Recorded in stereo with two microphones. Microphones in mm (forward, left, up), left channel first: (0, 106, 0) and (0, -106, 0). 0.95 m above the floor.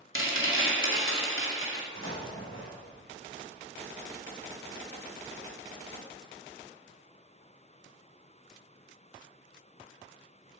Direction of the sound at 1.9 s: 75° left (ahead or behind).